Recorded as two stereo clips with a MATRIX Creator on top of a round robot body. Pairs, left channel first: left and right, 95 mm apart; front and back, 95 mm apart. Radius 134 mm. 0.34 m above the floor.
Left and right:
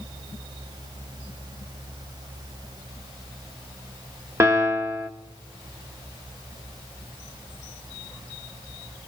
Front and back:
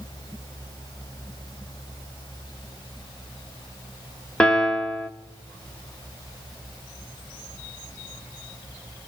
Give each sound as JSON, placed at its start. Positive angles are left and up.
{"t": 4.4, "sound": "a piano", "azimuth_deg": -70, "distance_m": 1.5}